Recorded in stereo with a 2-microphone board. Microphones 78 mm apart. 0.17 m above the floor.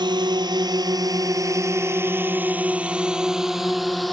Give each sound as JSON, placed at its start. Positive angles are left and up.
{"t": 0.0, "sound": "a drone", "side_deg": -70}